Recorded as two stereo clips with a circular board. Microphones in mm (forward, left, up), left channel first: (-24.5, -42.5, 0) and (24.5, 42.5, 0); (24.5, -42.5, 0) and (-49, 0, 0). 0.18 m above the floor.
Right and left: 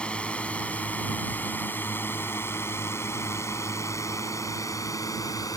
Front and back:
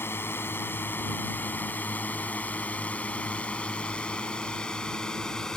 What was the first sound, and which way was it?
A drone, 50° right.